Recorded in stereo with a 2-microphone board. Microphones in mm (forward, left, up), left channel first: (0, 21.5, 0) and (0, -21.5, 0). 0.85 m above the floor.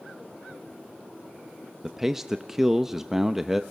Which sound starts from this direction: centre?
A man speaking, at 1.8 s.